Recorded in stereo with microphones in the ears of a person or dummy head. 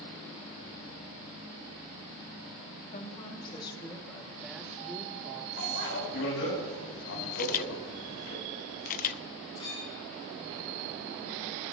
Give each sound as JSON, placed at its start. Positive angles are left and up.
{"t": 2.9, "sound": "a woman speaking", "side_deg": 40, "distance_m": 2.0}
{"t": 5.6, "sound": "a bicycle bell", "side_deg": 75, "distance_m": 5.5}
{"t": 7.3, "sound": "a camera shutter", "side_deg": 45, "distance_m": 0.5}
{"t": 9.6, "sound": "a clink", "side_deg": 30, "distance_m": 8.0}